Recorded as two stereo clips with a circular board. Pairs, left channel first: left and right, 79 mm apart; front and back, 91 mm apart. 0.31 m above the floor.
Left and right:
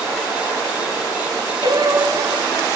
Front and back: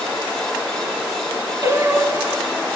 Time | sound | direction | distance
1.6 | singing | 120° right | 1.4 m